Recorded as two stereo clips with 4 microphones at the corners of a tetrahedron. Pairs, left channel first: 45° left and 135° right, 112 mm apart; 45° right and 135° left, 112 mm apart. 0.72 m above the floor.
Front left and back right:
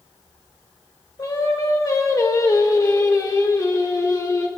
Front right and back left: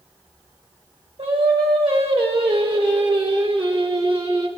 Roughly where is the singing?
Left.